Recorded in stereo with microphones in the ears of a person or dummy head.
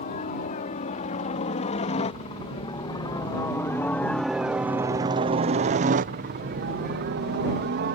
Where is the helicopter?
40° left (ahead or behind); by 8.0 s 60° right (ahead or behind).